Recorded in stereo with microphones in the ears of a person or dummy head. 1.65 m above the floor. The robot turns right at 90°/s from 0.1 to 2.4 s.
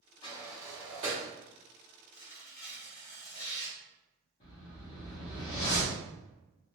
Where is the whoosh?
40° left (ahead or behind), 0.9 m.